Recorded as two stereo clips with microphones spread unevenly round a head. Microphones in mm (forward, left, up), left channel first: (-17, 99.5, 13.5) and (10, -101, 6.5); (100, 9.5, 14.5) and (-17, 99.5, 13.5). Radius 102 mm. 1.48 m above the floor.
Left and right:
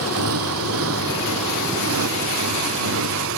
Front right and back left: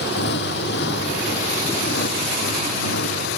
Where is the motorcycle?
65° right; by 3.4 s 55° right.